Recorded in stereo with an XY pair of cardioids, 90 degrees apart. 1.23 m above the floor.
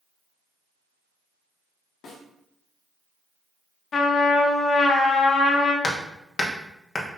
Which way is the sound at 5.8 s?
40° left.